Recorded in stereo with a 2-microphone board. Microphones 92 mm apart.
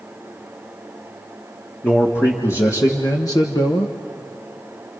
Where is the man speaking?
25° left (ahead or behind), 2 m; by 4.0 s 55° left (ahead or behind), 1.2 m.